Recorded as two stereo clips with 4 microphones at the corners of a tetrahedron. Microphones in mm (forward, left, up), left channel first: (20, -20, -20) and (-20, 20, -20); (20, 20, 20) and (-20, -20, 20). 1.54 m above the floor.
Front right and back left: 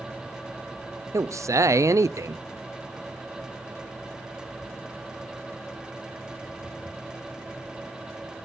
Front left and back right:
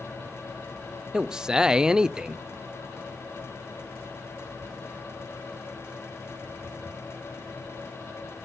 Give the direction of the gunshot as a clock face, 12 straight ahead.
No gunshot in this recording.